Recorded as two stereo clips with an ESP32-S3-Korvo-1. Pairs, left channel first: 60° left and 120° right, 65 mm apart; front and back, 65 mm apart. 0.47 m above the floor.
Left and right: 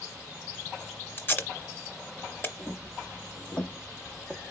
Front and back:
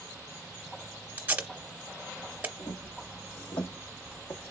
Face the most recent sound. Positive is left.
turn(degrees=-25)